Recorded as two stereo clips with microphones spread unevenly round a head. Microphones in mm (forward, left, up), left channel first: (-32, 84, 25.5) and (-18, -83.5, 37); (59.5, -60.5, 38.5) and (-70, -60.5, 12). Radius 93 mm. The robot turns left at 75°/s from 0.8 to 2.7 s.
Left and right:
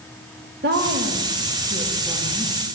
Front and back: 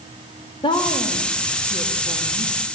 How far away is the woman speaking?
About 3 m.